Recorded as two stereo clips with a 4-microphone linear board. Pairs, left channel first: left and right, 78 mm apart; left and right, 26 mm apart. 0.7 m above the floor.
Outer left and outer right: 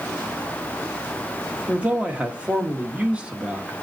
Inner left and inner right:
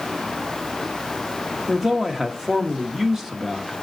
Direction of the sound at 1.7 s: 15° right (ahead or behind).